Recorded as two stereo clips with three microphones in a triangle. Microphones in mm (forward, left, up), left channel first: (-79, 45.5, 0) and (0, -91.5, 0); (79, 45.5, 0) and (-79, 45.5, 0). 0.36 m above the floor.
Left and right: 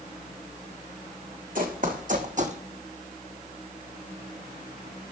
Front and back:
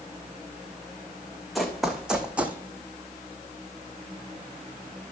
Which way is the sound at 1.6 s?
90° right.